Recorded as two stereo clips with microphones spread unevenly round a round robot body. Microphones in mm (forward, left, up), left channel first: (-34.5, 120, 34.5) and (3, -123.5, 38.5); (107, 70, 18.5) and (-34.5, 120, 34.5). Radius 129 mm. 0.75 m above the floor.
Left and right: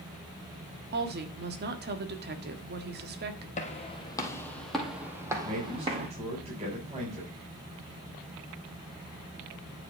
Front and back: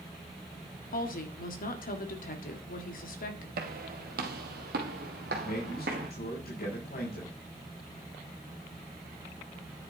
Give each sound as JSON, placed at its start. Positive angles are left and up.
{"t": 0.9, "sound": "a woman speaking", "azimuth_deg": -35, "distance_m": 1.6}
{"t": 3.6, "sound": "footsteps", "azimuth_deg": 160, "distance_m": 1.8}
{"t": 5.4, "sound": "a man speaking", "azimuth_deg": -15, "distance_m": 4.5}